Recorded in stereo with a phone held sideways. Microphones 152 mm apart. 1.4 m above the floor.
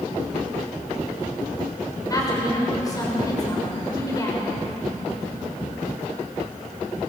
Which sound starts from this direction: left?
A woman speaking, at 2.1 s.